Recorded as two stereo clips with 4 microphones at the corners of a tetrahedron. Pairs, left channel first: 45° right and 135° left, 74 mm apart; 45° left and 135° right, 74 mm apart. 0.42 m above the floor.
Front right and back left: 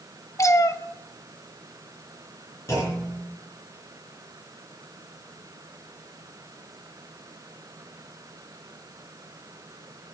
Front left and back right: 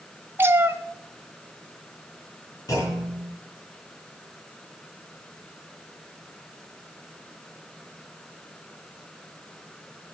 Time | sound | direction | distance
0.4 | a cat meowing | 80° right | 0.5 m
2.7 | a clunk | 5° left | 4.5 m